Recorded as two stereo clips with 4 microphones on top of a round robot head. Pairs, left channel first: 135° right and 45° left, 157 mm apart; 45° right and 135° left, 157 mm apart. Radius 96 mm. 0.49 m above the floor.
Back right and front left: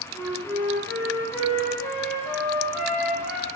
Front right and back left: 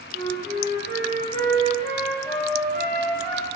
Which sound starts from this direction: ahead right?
A flute, at 0.1 s.